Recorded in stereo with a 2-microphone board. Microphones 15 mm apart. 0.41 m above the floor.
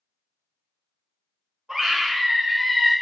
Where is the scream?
30° right (ahead or behind), 1.3 m; by 2.9 s 50° right (ahead or behind), 2.5 m.